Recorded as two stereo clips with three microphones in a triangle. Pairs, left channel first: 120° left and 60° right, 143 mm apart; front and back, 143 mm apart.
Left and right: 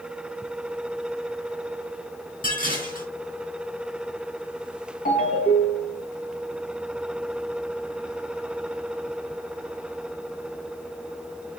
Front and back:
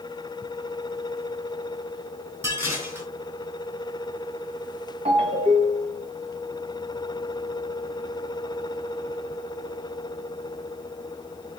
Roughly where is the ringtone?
Behind left.